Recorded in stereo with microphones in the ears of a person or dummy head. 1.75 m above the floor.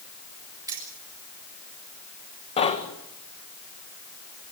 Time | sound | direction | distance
0.7 | keys jangling | 15° right (ahead or behind) | 3.5 m
2.6 | knocking | 35° left (ahead or behind) | 1.9 m